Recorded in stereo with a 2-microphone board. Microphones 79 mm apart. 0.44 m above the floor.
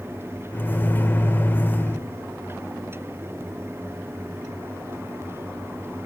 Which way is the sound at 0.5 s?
25° left (ahead or behind).